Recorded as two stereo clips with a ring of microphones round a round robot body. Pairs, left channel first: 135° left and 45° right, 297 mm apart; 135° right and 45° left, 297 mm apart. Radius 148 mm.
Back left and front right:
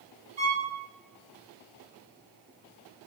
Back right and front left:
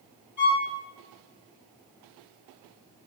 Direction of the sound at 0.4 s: 30° right.